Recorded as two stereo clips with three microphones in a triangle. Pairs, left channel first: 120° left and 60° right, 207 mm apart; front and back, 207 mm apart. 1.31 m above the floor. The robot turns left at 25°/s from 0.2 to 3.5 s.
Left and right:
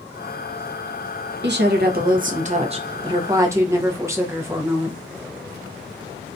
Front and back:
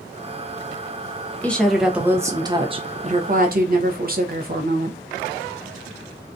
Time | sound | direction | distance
1.4 | a woman speaking | 85° right | 0.6 m